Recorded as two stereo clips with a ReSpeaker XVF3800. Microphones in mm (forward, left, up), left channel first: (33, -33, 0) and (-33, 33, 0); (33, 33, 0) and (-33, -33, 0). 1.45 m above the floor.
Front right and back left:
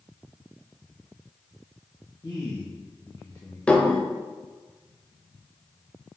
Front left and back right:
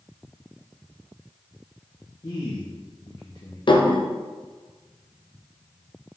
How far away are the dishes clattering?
About 0.8 m.